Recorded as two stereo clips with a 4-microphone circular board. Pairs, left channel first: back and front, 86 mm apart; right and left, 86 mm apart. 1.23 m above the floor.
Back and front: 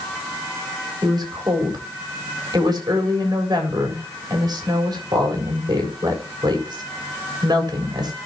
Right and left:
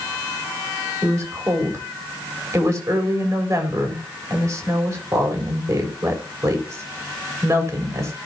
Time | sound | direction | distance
1.0 | a woman speaking | 40° left | 4 m